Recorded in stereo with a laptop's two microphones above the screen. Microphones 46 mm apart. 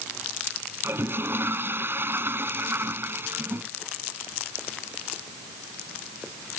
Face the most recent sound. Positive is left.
turn(degrees=-55)  # may be behind; listen again after turning